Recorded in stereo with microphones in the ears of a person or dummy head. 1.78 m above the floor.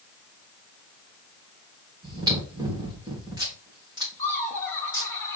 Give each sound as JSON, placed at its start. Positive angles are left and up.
{"t": 2.0, "sound": "chewing", "side_deg": -25, "distance_m": 2.0}
{"t": 4.2, "sound": "laughter", "side_deg": 15, "distance_m": 2.5}